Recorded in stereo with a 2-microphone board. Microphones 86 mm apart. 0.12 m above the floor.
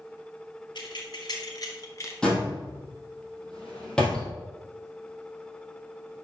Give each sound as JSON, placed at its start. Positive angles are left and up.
{"t": 0.8, "sound": "keys jangling", "side_deg": 60, "distance_m": 1.9}
{"t": 2.2, "sound": "a door slam", "side_deg": 10, "distance_m": 2.5}